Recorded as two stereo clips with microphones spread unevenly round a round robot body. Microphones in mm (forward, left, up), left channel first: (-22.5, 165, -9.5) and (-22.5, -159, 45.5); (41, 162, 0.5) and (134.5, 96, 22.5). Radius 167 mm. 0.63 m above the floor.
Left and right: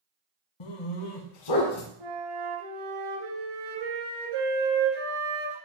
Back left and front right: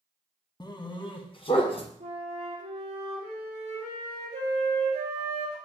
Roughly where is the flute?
Right.